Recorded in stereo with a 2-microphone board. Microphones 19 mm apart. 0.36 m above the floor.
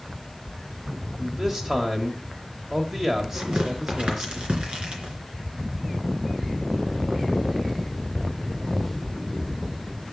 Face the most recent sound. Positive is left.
turn(degrees=-70)  # may be behind; listen again after turning